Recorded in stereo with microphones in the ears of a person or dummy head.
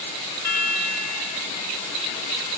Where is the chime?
15° right (ahead or behind), 3 m.